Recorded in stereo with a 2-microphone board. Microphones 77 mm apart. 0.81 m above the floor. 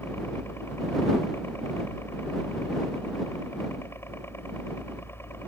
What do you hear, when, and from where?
0.0 s a helicopter: 30° left (ahead or behind)